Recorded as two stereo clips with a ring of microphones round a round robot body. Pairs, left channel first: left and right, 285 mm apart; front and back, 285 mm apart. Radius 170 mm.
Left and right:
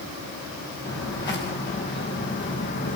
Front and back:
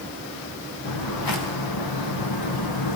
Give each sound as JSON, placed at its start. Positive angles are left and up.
{"t": 0.8, "sound": "footsteps", "azimuth_deg": 10, "distance_m": 4.5}